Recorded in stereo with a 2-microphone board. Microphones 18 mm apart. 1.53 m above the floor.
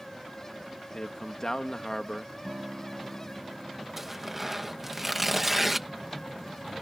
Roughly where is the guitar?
Right.